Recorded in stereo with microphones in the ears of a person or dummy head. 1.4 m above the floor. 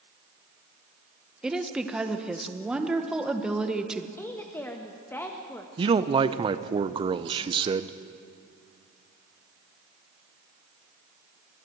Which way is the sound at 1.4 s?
Centre (ahead or behind).